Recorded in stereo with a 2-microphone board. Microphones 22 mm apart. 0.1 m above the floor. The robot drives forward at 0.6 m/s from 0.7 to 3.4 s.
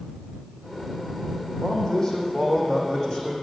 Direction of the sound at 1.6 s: 30° left (ahead or behind).